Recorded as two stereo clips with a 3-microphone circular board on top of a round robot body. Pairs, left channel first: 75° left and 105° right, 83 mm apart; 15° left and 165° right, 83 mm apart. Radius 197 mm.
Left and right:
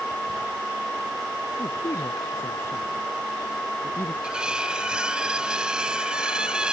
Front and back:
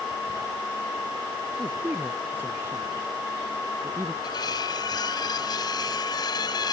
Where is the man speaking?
130° left.